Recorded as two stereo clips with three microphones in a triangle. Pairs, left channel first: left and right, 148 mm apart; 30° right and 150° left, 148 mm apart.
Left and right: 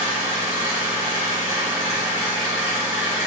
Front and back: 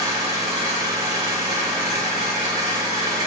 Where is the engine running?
155° right, 1.5 m.